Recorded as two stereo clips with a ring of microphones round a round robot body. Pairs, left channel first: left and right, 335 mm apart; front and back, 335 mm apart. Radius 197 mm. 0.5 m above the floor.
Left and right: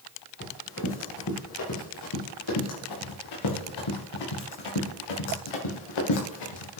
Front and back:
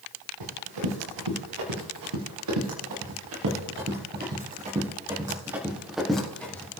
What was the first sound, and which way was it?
Running footsteps, 150° left.